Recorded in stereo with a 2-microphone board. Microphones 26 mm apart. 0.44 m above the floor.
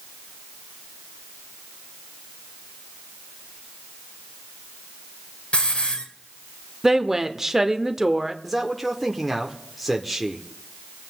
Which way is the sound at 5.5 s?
55° left (ahead or behind).